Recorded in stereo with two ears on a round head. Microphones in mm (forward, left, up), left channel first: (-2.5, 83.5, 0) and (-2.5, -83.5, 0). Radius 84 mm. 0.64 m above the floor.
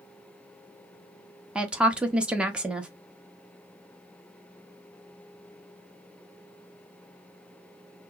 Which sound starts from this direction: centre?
A woman speaking, at 1.6 s.